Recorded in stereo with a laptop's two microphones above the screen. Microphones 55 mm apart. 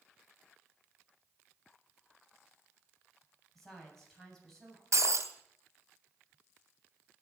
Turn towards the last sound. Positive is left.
turn(degrees=-65)  # may be behind; listen again after turning